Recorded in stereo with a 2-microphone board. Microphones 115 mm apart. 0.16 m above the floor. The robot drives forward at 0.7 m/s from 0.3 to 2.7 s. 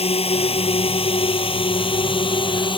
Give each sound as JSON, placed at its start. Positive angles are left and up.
{"t": 0.0, "sound": "a drone", "side_deg": 60}